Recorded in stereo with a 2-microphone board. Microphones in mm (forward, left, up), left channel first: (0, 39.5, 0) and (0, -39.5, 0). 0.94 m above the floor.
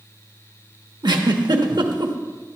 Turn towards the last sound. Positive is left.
turn(degrees=-70)  # may be behind; listen again after turning